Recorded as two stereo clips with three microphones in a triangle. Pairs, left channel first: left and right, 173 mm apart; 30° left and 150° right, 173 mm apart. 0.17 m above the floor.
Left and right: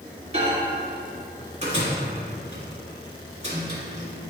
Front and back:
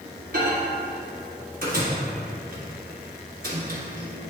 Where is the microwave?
135° right, 1.8 m.